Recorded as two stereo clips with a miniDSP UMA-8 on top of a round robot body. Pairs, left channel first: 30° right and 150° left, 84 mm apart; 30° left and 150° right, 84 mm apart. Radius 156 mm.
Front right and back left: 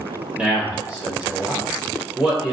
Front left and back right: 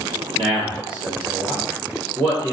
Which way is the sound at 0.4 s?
135° right.